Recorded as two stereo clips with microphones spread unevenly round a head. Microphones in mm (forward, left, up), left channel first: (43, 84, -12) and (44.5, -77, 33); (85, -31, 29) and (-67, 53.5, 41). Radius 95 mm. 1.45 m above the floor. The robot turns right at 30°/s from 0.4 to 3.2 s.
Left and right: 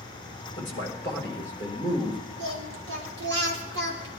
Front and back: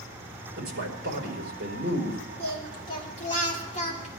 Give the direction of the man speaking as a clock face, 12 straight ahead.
7 o'clock.